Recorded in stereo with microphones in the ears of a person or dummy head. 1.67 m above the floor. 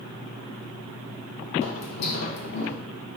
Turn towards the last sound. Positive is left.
turn(degrees=50)  # may be behind; listen again after turning